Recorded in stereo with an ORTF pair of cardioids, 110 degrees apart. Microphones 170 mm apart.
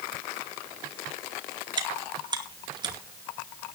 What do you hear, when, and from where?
1.8 s chewing: 25° right, 2.5 m